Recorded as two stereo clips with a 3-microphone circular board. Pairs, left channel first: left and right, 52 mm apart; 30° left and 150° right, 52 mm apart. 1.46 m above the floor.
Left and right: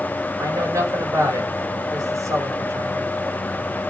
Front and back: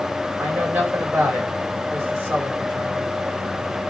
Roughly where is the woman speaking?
Right.